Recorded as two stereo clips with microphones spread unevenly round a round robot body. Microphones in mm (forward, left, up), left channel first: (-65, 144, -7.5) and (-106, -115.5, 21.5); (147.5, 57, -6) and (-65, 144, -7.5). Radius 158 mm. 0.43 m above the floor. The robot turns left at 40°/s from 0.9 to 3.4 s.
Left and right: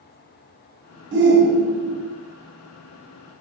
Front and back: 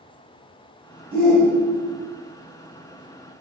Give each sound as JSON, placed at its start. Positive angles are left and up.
{"t": 1.1, "sound": "a shout", "azimuth_deg": -105, "distance_m": 1.0}